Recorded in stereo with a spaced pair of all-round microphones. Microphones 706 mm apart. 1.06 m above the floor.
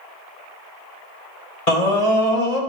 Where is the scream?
60° left (ahead or behind), 2.5 m.